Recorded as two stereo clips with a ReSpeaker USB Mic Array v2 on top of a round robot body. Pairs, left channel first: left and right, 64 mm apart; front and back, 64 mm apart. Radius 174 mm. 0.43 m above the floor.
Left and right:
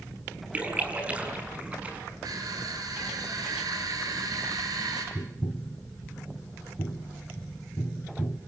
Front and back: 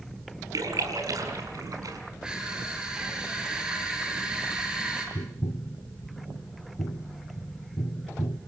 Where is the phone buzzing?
I don't hear a phone buzzing.